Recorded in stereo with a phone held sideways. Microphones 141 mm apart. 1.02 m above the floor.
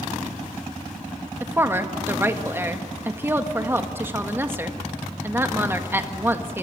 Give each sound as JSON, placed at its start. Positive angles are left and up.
{"t": 1.4, "sound": "a woman speaking", "side_deg": -15, "distance_m": 1.7}